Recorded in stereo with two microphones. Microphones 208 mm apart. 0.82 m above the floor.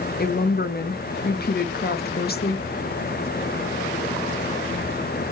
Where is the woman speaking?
50° left (ahead or behind), 0.5 m.